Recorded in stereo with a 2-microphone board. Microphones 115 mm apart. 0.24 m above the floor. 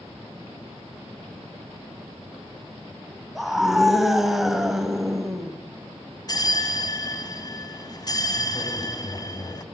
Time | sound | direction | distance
3.4 | a scream | 5° right (ahead or behind) | 1.1 m
6.3 | a bell | 35° left (ahead or behind) | 0.9 m